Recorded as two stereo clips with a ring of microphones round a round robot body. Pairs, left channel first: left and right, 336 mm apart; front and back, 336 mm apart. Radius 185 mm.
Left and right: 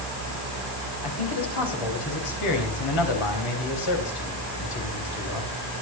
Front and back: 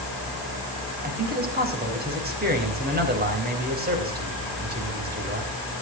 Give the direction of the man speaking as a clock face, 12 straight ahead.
8 o'clock.